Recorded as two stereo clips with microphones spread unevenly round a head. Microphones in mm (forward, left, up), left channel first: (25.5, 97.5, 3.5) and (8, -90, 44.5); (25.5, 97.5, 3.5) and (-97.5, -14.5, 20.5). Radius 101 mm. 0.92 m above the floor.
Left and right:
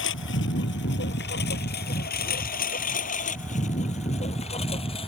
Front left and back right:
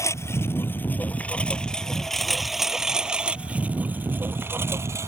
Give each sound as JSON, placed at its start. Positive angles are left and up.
{"t": 0.0, "sound": "a lawn mower", "azimuth_deg": 115}